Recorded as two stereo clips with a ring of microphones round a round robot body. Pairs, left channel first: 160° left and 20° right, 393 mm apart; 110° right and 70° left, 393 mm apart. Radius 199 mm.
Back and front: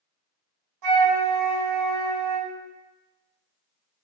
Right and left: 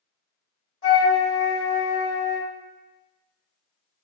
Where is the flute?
60° right, 2.5 m.